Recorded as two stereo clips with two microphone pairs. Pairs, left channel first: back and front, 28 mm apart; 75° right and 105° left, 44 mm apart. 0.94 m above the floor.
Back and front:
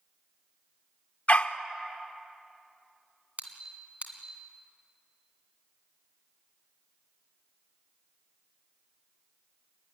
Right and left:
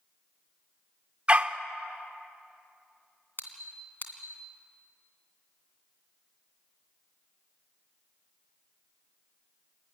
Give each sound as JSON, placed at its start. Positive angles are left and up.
{"t": 1.3, "sound": "a dog barking", "azimuth_deg": 160, "distance_m": 0.8}
{"t": 3.4, "sound": "a squeak", "azimuth_deg": -35, "distance_m": 2.5}